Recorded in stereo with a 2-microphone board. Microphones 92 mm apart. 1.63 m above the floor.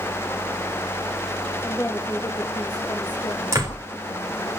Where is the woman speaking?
35° left (ahead or behind), 3 m; by 4.5 s 65° left (ahead or behind), 3.5 m.